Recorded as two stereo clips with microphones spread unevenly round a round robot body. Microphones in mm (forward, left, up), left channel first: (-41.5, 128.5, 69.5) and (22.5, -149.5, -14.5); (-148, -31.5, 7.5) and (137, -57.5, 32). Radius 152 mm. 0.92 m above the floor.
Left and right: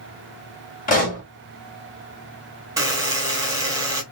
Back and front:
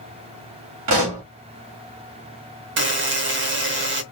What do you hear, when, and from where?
0.9 s a pop: 35° left, 1.6 m
2.8 s a buzzer: 15° left, 0.8 m